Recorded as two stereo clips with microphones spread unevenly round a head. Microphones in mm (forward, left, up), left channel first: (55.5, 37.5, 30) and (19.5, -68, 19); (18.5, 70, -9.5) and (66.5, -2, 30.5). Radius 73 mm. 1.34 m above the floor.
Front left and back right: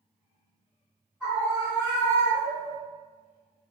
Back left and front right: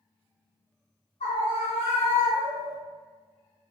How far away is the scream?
About 1.1 m.